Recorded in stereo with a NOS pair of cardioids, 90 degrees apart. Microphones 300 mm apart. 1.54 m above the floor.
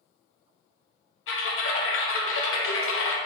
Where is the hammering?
I don't hear hammering.